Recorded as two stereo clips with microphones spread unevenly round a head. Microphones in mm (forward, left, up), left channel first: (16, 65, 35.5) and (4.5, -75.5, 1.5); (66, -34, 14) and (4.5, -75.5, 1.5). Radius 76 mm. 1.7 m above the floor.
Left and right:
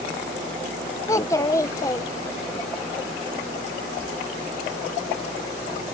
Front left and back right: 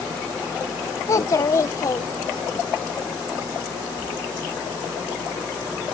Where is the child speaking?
40° left.